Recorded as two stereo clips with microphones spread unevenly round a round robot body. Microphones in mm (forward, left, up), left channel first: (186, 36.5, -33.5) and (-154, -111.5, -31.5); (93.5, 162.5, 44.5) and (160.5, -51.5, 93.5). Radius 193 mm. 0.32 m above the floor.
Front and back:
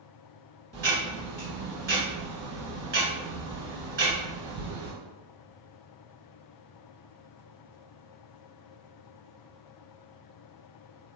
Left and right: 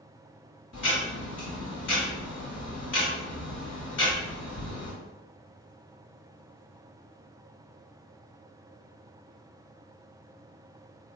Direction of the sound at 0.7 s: 145° left.